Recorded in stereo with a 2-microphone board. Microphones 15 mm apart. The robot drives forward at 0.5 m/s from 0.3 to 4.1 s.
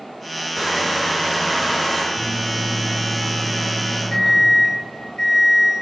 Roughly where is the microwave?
Left.